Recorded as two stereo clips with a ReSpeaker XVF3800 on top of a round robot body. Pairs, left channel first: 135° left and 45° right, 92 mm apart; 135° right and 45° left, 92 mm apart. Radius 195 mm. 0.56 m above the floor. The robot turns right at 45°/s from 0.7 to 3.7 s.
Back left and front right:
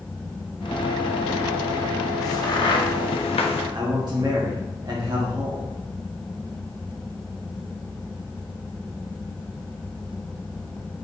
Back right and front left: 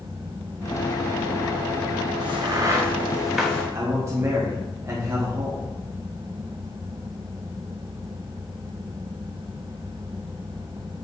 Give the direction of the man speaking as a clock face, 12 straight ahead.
12 o'clock.